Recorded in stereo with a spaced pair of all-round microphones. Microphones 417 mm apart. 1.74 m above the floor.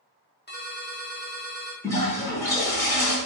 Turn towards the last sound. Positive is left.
turn(degrees=5)  # may be behind; listen again after turning